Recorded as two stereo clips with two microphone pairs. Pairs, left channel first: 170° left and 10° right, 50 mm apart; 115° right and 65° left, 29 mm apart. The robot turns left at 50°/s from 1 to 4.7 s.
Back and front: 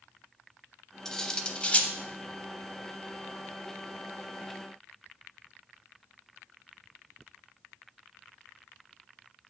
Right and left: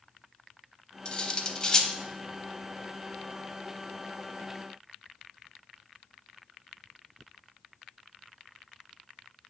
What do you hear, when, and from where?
1.1 s cutlery clinking: 120° right, 0.6 m; by 1.9 s 160° right, 0.6 m